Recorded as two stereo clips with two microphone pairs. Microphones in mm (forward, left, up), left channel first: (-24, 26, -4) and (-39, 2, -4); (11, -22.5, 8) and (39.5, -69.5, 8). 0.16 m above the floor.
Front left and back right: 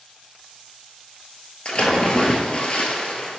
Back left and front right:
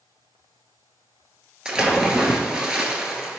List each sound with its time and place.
1.6 s a splash: 10° left, 0.6 m